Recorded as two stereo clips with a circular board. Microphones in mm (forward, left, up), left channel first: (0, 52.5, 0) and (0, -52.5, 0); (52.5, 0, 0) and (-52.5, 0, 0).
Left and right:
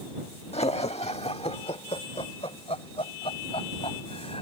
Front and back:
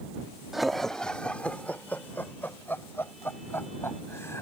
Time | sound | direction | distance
0.5 | laughter | 90° left | ?